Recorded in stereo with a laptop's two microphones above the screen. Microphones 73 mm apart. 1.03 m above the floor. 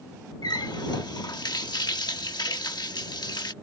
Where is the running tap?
75° left (ahead or behind).